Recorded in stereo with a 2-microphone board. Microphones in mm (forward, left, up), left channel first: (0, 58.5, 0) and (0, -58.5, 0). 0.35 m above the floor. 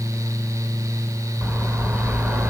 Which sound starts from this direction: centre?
A bird, at 1.4 s.